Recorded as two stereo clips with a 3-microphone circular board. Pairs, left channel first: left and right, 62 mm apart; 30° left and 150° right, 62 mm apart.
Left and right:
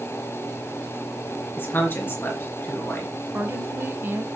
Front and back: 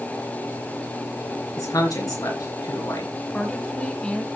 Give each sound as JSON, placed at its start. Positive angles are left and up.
{"t": 1.6, "sound": "a man speaking", "azimuth_deg": 40, "distance_m": 3.0}
{"t": 3.3, "sound": "a woman speaking", "azimuth_deg": -40, "distance_m": 2.5}